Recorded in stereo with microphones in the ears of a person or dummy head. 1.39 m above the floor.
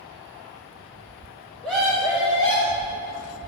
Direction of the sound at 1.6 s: Centre (ahead or behind).